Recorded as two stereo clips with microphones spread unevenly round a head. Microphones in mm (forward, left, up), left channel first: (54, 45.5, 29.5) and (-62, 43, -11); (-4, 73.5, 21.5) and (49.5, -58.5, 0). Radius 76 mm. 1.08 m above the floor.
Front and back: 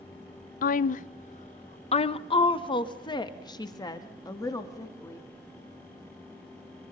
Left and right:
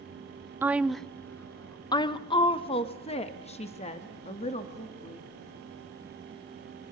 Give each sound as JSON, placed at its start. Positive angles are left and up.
{"t": 0.6, "sound": "a woman speaking", "azimuth_deg": -5, "distance_m": 0.6}